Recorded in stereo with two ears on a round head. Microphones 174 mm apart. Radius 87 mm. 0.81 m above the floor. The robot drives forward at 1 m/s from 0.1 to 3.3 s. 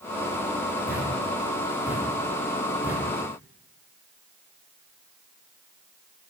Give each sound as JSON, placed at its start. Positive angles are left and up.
{"t": 0.9, "sound": "a thud", "side_deg": -10, "distance_m": 7.0}